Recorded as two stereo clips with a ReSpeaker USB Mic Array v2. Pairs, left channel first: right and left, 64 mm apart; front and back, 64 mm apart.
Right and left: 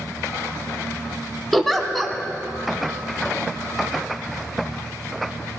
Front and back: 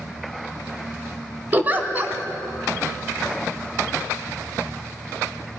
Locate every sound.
1.5 s a giggle: 175° right, 0.9 m